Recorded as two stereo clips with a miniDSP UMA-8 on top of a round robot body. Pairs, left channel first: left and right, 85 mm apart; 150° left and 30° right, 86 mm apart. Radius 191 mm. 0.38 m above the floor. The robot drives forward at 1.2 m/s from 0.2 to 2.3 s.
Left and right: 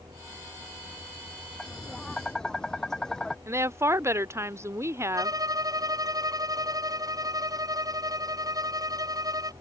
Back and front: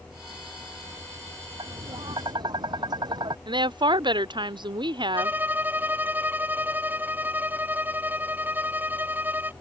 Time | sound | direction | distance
1.6 | tapping | 5° left | ?
3.5 | a woman speaking | 35° right | ?
5.1 | a violin | 90° right | ?